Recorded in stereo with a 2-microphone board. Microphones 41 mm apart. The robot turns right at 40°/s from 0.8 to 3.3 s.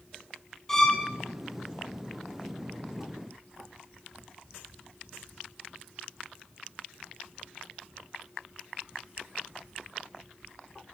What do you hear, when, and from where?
0.7 s a violin: 15° left (ahead or behind), 2 m; by 1.1 s 5° left (ahead or behind), 2 m